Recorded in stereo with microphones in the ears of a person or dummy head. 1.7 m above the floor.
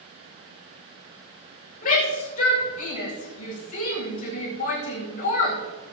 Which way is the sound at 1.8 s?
40° left (ahead or behind).